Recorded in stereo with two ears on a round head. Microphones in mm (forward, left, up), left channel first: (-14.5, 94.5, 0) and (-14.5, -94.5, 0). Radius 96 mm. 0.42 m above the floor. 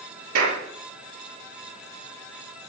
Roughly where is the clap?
Right.